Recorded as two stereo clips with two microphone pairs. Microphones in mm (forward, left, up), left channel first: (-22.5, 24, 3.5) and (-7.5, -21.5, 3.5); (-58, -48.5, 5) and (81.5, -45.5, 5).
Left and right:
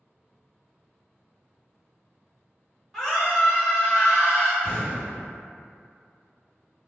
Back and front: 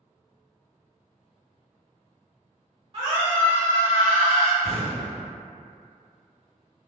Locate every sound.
2.9 s a scream: 30° left, 1.1 m; by 4.5 s 95° left, 1.1 m
4.6 s an explosion: 95° left, 1.7 m